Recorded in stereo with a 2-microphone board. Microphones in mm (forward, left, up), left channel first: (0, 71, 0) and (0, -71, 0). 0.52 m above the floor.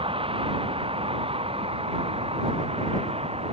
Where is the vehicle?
40° right (ahead or behind); by 3.5 s 45° right (ahead or behind).